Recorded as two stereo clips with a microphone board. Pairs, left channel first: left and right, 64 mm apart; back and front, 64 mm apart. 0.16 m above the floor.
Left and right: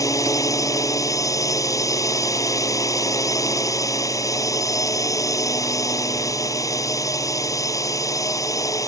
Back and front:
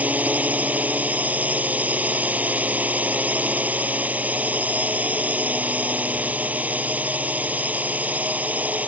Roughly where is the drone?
Ahead left.